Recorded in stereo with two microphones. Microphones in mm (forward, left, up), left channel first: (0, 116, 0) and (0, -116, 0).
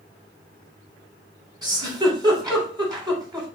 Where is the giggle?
20° right (ahead or behind), 1.3 m.